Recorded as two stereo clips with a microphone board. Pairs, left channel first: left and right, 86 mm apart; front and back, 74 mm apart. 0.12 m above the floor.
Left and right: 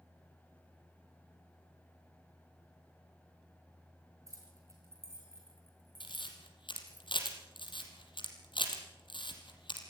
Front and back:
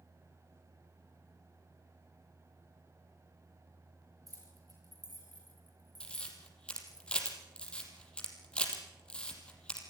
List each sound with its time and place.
4.3 s keys jangling: 145° right, 7.5 m; by 7.0 s 165° right, 6.5 m
6.0 s a camera shutter: 75° left, 4.5 m